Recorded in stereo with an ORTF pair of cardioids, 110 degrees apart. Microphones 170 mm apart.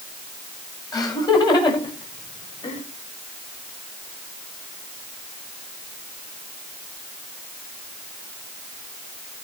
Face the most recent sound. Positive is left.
turn(degrees=35)